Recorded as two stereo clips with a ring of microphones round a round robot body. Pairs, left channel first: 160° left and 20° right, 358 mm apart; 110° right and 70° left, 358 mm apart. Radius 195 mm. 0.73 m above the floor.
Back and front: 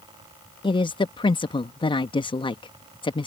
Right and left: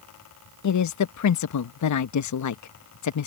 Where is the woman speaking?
130° right.